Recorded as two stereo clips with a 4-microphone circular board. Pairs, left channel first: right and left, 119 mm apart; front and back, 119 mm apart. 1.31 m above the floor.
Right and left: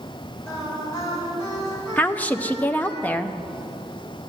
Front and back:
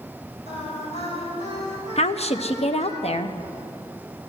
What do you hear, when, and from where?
0.5 s singing: 25° right, 6 m
2.0 s a woman speaking: 15° right, 0.7 m